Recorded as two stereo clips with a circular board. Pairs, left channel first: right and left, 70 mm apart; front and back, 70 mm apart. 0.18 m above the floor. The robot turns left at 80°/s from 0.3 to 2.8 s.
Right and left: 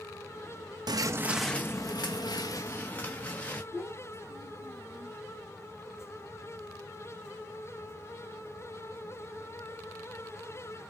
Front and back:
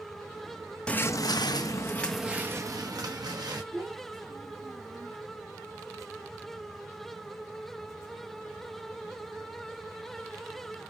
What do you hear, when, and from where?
0.9 s footsteps: 75° left, 0.6 m; by 3.6 s 160° right, 1.6 m
3.7 s a child speaking: 145° left, 3 m